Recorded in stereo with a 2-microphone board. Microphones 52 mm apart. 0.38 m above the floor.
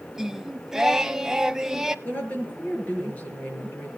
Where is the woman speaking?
30° left (ahead or behind), 6 m.